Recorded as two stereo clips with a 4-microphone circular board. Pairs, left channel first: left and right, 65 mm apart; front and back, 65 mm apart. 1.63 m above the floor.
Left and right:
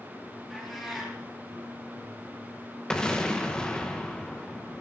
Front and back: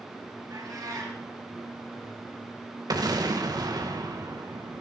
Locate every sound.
0.5 s a cat meowing: straight behind, 6 m
2.9 s an explosion: 170° left, 1.8 m